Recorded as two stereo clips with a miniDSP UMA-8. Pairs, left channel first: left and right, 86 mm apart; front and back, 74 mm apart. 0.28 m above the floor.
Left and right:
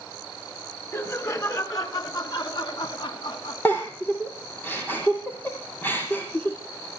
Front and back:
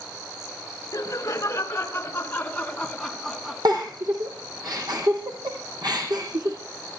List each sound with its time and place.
0.9 s laughter: 40° left, 4 m; by 3.5 s 95° left, 2.5 m
3.6 s a giggle: 155° left, 6 m